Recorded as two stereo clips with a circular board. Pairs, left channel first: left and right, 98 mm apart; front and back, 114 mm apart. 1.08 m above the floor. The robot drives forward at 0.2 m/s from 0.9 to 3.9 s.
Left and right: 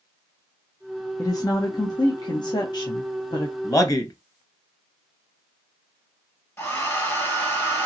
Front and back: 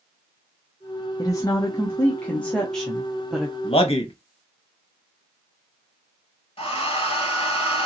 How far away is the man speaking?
About 0.8 m.